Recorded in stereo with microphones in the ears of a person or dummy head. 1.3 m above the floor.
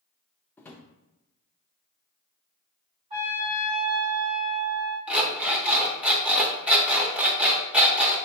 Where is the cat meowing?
No cat meowing in this recording.